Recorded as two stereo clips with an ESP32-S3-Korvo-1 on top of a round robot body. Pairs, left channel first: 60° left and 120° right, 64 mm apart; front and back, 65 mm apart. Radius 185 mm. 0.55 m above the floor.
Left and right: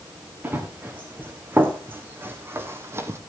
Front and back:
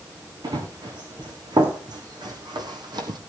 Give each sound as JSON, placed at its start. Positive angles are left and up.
{"t": 0.4, "sound": "running footsteps", "azimuth_deg": 175, "distance_m": 3.5}